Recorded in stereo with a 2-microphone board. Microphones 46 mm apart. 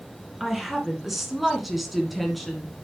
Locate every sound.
0.4 s a woman speaking: 5° right (ahead or behind), 1.8 m; by 2.7 s centre (ahead or behind), 1.5 m